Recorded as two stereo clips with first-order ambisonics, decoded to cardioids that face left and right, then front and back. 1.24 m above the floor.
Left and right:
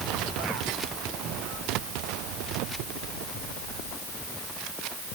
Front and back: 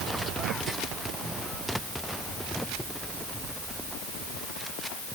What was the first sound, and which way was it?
Only background noise.